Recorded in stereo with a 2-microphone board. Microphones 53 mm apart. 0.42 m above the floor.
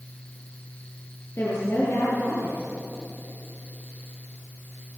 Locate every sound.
1.4 s a woman speaking: 50° left (ahead or behind), 7.5 m